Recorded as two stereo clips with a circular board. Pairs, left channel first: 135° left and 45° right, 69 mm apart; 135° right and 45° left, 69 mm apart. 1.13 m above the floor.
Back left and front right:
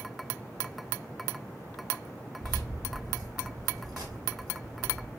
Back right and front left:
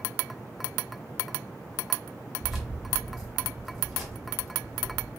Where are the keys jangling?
45° right, 0.9 m.